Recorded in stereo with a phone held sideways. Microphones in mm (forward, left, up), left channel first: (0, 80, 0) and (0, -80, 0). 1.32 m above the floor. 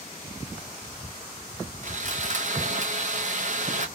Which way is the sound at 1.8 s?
50° right (ahead or behind).